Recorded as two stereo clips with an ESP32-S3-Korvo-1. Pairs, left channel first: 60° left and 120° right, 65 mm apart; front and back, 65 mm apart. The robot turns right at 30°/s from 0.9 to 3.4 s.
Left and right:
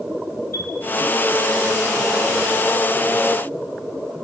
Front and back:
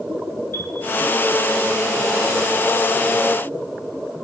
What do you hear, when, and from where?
0.5 s a chime: 45° left, 2 m